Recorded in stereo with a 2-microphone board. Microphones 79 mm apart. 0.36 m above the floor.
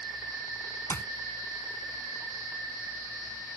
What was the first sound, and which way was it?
A clap, 30° left (ahead or behind).